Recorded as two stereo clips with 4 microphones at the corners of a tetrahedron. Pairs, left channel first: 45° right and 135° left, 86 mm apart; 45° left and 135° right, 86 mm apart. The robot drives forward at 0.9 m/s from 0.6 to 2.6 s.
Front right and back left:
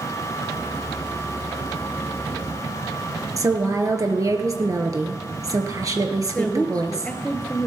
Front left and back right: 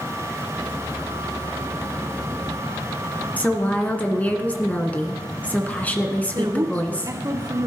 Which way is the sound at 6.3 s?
115° right.